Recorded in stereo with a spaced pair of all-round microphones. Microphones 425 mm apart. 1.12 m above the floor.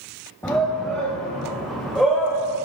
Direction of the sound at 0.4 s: 5° left (ahead or behind).